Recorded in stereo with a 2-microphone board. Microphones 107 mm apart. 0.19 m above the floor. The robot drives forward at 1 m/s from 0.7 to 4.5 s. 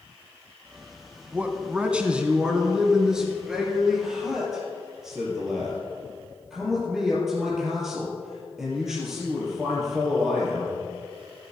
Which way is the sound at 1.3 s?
15° right (ahead or behind).